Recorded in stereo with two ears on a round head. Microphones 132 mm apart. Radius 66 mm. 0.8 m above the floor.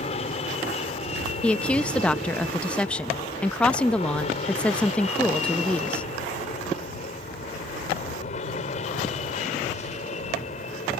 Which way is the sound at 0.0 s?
40° left (ahead or behind).